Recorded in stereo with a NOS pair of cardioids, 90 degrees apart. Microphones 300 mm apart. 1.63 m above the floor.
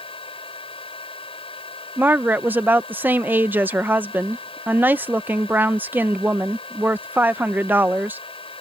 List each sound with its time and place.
0.0 s a fan: 20° left
2.0 s a woman speaking: 5° right